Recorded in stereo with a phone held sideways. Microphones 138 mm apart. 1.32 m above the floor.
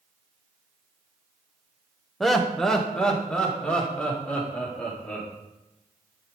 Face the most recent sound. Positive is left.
turn(degrees=10)  # may be behind; listen again after turning